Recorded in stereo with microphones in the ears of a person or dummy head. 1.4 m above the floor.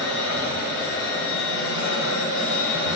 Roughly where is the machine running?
Left.